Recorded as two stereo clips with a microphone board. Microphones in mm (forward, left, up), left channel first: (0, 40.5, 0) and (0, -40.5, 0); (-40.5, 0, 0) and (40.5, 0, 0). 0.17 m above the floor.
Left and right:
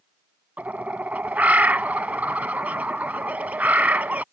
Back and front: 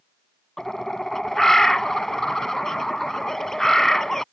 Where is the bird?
105° right.